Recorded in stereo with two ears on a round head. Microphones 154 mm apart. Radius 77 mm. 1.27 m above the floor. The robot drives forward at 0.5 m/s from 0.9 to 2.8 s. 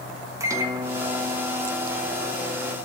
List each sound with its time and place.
0.4 s a microwave: 20° right (ahead or behind), 1.3 m; by 2.8 s 10° right (ahead or behind), 2 m